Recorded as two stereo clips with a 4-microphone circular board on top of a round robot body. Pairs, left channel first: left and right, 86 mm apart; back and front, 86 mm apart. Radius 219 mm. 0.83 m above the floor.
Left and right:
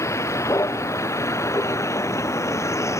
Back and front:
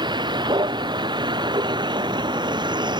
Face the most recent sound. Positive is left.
turn(degrees=35)